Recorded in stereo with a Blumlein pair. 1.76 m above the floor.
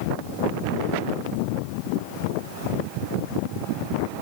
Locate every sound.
Only background noise.